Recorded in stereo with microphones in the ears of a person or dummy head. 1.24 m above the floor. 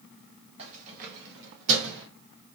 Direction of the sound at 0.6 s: 35° right (ahead or behind).